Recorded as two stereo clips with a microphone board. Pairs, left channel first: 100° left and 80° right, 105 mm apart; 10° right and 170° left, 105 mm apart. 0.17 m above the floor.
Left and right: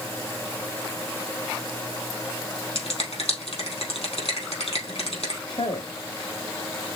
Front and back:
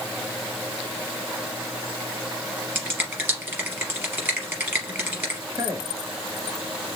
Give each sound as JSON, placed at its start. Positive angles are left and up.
{"t": 2.8, "sound": "a finger snap", "azimuth_deg": 100, "distance_m": 3.0}
{"t": 5.5, "sound": "a man speaking", "azimuth_deg": 115, "distance_m": 3.5}